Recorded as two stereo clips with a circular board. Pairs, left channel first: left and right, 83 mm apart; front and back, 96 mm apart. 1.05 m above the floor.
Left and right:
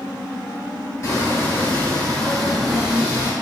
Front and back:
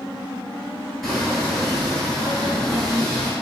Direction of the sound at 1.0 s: 90° left.